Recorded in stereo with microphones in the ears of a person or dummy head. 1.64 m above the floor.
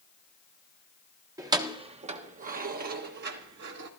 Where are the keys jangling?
10° right (ahead or behind), 1.1 m; by 3.9 s 60° right (ahead or behind), 2 m.